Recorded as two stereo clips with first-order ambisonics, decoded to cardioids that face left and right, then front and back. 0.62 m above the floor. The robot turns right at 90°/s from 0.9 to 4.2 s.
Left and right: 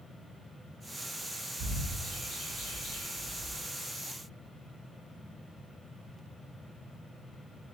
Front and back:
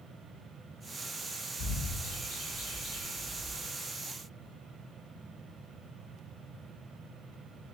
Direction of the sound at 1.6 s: 40° right.